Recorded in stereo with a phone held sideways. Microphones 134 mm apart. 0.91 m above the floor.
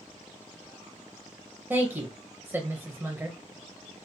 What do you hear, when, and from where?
1.7 s a woman speaking: 15° right (ahead or behind), 0.6 m